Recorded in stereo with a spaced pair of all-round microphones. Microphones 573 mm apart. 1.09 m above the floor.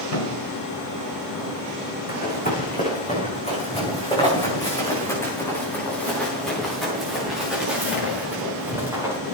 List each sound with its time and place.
0.1 s a thud: 70° left (ahead or behind), 5.5 m
2.1 s running footsteps: 15° left (ahead or behind), 6 m; by 9.2 s 5° right (ahead or behind), 8.5 m